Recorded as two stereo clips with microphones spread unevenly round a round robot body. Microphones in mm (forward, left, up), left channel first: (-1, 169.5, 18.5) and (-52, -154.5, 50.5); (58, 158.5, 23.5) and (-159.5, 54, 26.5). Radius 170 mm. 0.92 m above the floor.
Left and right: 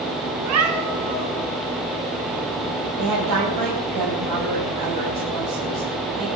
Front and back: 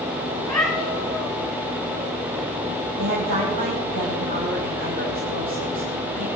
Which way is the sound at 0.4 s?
55° right.